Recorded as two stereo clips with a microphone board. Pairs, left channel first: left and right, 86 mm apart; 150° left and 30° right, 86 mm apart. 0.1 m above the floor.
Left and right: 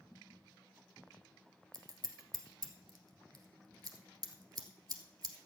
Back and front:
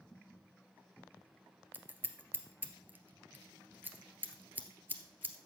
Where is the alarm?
I don't hear an alarm.